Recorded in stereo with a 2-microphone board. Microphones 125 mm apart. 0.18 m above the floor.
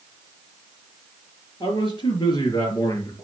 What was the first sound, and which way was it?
A man speaking, 40° left (ahead or behind).